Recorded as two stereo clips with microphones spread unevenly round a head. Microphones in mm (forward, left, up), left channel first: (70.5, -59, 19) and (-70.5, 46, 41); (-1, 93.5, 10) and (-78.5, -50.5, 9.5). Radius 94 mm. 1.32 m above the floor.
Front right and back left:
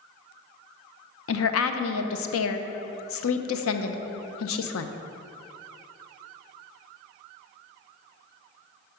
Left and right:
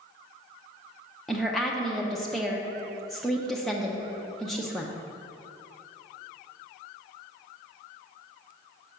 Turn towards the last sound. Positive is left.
turn(degrees=-25)